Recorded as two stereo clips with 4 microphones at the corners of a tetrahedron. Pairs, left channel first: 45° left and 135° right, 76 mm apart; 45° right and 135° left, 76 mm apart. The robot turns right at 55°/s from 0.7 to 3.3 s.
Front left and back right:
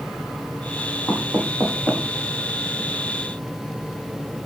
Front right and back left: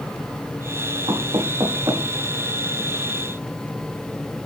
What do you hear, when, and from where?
1.1 s knocking: 130° left, 6 m; by 2.1 s 175° right, 6 m